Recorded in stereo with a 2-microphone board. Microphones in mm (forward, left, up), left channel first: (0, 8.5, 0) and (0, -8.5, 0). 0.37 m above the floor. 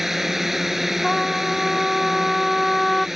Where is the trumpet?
30° left (ahead or behind).